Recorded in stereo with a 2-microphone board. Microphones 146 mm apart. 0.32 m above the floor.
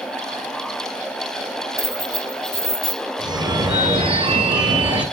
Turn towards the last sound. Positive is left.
turn(degrees=-30)  # may be behind; listen again after turning